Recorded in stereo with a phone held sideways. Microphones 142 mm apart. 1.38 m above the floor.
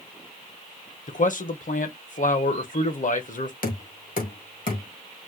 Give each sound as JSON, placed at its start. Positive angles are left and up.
{"t": 1.1, "sound": "a man speaking", "side_deg": 65, "distance_m": 0.8}
{"t": 3.6, "sound": "knocking", "side_deg": 75, "distance_m": 1.5}